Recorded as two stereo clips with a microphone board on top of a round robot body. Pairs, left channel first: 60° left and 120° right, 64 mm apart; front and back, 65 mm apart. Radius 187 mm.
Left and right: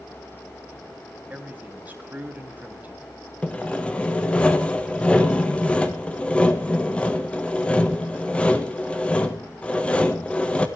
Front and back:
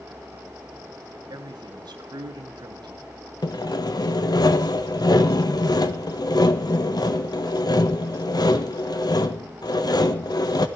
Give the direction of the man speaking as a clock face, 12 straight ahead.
6 o'clock.